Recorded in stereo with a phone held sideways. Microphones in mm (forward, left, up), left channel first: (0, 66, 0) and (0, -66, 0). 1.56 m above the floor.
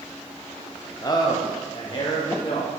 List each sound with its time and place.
1.0 s a man speaking: 30° left (ahead or behind), 0.8 m; by 2.7 s 45° left (ahead or behind), 1.7 m